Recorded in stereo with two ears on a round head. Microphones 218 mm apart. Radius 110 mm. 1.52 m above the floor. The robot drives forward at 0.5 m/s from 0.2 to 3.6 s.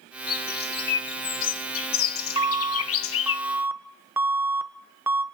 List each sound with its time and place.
0.3 s a bird: 40° left (ahead or behind), 1.6 m; by 3.4 s 60° left (ahead or behind), 1.2 m
2.4 s an alarm: 20° right (ahead or behind), 0.6 m; by 5.2 s 10° right (ahead or behind), 1.2 m